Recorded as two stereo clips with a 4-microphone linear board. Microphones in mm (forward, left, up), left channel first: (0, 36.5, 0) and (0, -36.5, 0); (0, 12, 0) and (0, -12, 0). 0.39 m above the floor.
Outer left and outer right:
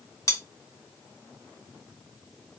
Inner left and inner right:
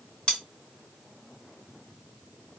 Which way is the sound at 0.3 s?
45° left (ahead or behind).